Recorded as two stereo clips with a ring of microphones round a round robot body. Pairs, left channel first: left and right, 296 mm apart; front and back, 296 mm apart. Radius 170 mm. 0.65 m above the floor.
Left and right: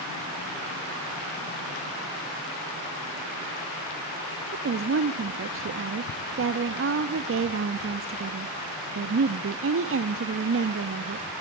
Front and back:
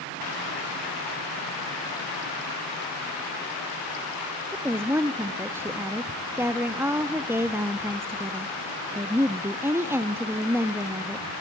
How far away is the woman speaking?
About 0.7 m.